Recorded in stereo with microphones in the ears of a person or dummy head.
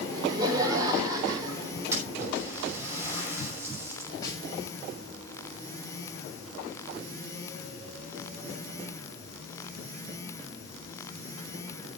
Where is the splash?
20° right (ahead or behind), 5.5 m.